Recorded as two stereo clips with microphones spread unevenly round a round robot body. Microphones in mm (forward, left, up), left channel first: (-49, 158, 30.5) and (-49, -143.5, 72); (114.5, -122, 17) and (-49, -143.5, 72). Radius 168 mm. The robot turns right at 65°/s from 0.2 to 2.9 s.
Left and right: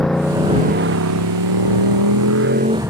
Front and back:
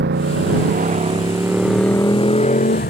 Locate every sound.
0.0 s a motorcycle: straight behind; by 2.9 s 5° right